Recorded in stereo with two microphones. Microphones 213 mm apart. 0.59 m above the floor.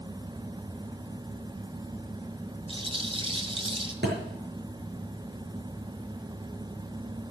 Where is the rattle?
25° right (ahead or behind), 1.7 m.